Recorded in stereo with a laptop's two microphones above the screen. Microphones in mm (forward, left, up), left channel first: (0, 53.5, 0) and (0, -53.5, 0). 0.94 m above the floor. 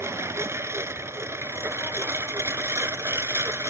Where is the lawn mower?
25° right (ahead or behind).